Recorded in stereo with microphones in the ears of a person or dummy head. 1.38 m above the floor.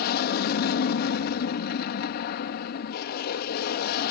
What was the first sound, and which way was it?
An aircraft, 50° left (ahead or behind).